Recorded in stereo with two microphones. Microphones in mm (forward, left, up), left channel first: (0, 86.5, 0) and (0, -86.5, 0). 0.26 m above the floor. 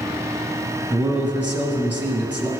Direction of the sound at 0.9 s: 10° right (ahead or behind).